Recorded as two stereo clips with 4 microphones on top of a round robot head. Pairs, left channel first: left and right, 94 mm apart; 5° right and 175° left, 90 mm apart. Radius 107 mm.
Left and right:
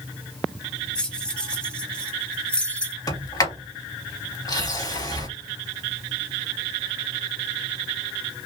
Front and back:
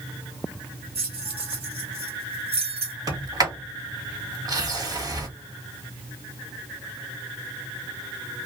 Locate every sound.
0.9 s keys jangling: 170° left, 1.4 m
3.1 s a sliding door: 135° left, 2 m